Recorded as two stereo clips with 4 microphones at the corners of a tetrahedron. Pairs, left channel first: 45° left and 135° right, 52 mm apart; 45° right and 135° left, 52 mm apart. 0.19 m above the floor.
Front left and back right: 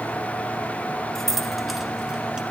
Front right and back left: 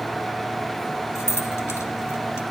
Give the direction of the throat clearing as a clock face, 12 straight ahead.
No throat clearing in this recording.